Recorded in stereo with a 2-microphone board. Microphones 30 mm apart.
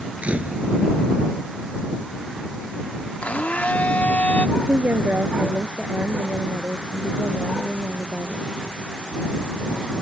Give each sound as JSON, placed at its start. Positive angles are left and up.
{"t": 0.2, "sound": "a camera shutter", "side_deg": -45}
{"t": 3.2, "sound": "a blender", "side_deg": 60}
{"t": 4.6, "sound": "a woman speaking", "side_deg": -85}